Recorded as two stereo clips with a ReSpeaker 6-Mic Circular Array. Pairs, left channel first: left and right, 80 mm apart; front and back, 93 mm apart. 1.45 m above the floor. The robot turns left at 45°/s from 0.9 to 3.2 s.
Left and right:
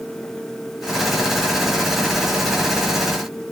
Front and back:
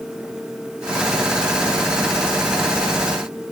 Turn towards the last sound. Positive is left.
No sound to turn to.